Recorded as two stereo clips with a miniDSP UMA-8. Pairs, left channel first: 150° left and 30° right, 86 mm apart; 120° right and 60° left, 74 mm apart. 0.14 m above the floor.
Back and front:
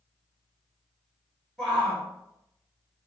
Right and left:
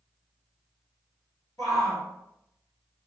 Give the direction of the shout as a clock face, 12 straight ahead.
4 o'clock.